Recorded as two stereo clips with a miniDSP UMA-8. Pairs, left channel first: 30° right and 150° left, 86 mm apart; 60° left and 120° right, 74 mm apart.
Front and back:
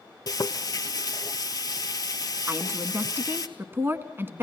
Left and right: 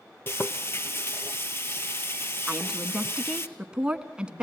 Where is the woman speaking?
170° left, 1.2 m.